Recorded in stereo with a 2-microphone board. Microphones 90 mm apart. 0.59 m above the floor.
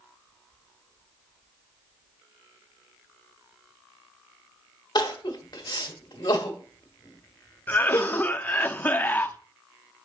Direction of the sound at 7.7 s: 20° left (ahead or behind).